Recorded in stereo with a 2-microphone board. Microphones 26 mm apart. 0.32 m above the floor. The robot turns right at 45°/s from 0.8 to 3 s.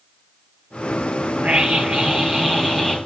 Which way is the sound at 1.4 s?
75° right.